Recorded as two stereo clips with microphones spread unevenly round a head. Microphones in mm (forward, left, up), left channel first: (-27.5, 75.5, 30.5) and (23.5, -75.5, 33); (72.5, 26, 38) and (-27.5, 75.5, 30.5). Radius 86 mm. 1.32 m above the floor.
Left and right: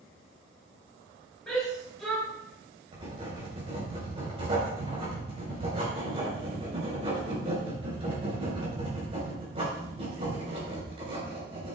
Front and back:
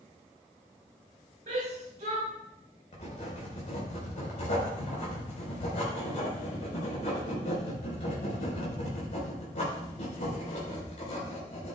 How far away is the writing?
About 4.5 m.